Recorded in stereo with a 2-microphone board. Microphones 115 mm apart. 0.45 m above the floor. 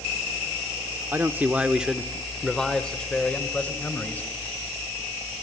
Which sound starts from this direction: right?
A man speaking, at 1.1 s.